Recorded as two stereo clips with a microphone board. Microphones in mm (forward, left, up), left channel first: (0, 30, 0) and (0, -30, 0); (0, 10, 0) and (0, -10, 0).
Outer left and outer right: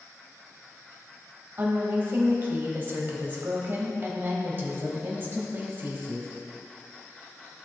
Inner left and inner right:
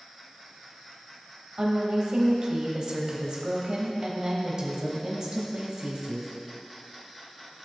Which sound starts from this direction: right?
A woman speaking, at 1.6 s.